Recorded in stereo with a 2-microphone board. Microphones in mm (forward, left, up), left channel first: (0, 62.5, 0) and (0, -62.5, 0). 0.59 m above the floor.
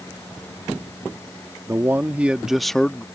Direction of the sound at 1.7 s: 20° right (ahead or behind).